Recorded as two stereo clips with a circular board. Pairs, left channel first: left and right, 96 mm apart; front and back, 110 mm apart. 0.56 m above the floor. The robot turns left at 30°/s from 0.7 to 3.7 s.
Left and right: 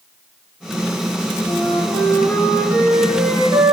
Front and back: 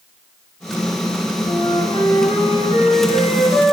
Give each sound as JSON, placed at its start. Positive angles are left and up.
{"t": 1.5, "sound": "a flute", "azimuth_deg": 30, "distance_m": 3.0}